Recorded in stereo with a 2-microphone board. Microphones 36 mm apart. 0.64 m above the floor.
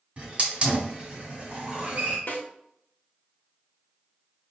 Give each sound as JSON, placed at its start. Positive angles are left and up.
{"t": 0.2, "sound": "a hiss", "side_deg": -35, "distance_m": 1.3}
{"t": 2.3, "sound": "a snare drum", "side_deg": 70, "distance_m": 1.0}